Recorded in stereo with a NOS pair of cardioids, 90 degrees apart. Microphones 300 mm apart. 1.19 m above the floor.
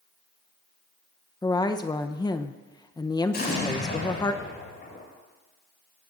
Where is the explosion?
35° left, 6.5 m.